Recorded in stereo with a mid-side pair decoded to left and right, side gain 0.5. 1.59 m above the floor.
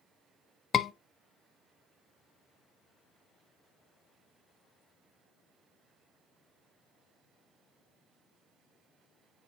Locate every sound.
0.7 s a scream: 45° left, 0.8 m